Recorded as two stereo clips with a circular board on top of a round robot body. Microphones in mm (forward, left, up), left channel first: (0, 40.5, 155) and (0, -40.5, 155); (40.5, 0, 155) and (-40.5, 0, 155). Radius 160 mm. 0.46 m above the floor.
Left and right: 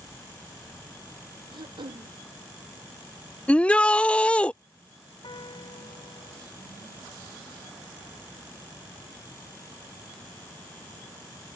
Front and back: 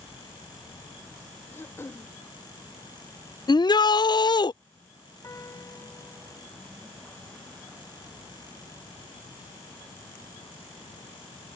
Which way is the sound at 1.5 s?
65° right.